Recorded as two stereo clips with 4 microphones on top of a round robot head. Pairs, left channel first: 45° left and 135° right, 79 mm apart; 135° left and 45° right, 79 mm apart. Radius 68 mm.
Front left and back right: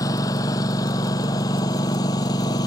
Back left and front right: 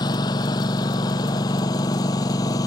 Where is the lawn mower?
95° left; by 2.7 s 90° left.